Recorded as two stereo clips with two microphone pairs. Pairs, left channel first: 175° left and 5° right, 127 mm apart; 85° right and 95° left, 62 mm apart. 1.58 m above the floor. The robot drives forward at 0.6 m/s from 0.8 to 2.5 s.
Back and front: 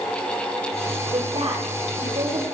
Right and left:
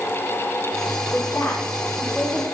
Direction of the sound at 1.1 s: 35° right.